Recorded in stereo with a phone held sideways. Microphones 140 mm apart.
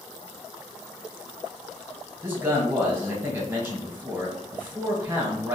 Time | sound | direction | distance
2.2 | a man speaking | 15° right (ahead or behind) | 1.3 m